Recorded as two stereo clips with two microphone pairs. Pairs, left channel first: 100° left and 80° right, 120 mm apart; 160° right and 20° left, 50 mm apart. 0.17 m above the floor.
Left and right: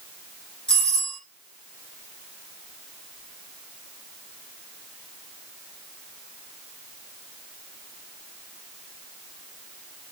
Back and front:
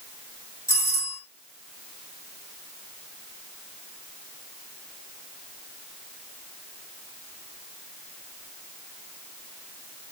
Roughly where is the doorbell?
Behind.